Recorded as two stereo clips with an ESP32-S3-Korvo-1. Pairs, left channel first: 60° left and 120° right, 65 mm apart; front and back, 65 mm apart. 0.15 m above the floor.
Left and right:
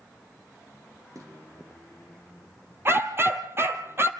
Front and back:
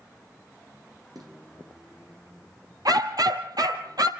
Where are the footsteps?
160° right, 5.5 m.